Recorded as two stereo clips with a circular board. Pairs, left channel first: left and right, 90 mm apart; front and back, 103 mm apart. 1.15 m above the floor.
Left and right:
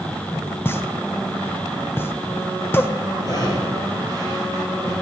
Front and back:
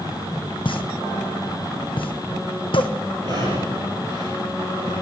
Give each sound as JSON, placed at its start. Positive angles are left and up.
{"t": 0.7, "sound": "a pop", "azimuth_deg": 25, "distance_m": 0.8}
{"t": 3.2, "sound": "breathing", "azimuth_deg": 135, "distance_m": 4.0}